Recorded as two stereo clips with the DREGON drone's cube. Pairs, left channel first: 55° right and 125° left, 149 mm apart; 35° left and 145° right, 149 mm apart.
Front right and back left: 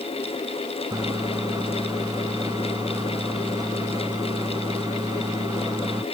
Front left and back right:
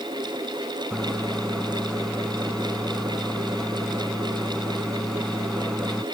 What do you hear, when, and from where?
0.9 s a microwave: 115° left